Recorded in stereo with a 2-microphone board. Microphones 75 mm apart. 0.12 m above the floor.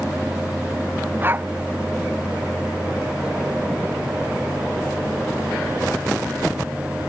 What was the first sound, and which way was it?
A dog barking, 30° right (ahead or behind).